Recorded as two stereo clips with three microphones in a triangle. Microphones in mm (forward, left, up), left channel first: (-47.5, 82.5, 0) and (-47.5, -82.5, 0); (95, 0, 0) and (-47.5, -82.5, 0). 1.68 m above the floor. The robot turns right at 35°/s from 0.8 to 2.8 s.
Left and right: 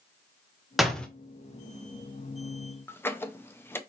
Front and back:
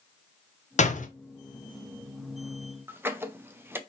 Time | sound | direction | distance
0.8 | a door slam | straight ahead | 0.8 m
2.9 | a squeak | 150° left | 0.6 m